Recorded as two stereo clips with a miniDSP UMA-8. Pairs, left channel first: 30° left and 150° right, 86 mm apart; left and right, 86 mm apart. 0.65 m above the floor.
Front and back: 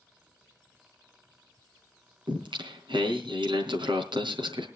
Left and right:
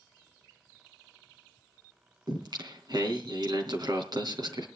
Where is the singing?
130° right, 3.5 m.